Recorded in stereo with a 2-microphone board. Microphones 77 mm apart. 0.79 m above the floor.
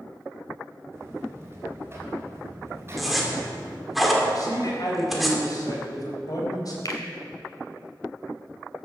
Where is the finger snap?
50° left (ahead or behind), 2.5 m.